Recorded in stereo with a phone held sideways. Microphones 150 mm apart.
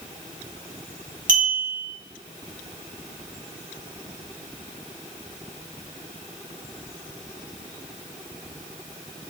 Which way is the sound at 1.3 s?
60° right (ahead or behind).